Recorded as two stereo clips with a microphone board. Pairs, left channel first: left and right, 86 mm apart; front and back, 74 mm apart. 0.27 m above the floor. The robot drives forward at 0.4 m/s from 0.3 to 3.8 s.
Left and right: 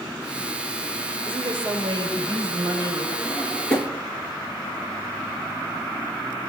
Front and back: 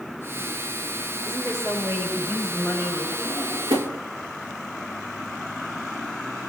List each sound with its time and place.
1.2 s a woman speaking: 125° right, 6.5 m; by 3.1 s 130° right, 6.5 m
3.2 s a drawer: 165° left, 1.2 m; by 4.0 s 170° left, 1.4 m